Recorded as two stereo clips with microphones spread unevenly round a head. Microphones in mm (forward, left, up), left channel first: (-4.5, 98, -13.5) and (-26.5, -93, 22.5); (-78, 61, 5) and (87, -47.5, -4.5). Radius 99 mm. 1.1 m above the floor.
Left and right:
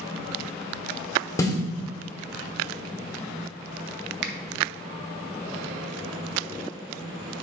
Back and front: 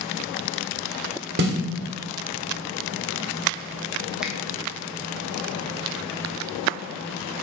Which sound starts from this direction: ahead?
A snare drum, at 1.4 s.